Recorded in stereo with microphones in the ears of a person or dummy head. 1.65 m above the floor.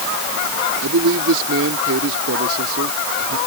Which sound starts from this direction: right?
A man speaking, at 0.8 s.